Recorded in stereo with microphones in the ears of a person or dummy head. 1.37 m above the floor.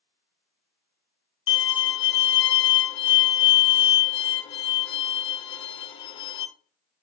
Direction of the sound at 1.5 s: 25° left (ahead or behind).